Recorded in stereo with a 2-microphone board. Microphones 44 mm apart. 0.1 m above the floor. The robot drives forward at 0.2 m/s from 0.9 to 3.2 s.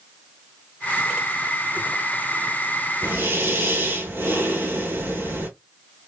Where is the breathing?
55° right (ahead or behind), 1.4 m.